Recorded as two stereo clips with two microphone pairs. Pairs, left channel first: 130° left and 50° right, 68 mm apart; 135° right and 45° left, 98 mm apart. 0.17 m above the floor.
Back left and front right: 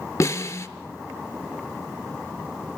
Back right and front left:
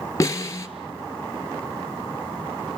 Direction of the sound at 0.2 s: 165° left.